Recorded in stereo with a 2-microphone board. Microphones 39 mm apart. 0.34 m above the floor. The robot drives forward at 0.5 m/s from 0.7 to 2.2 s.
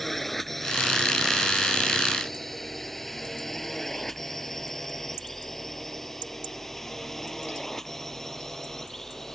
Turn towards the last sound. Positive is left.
turn(degrees=10)  # may be behind; listen again after turning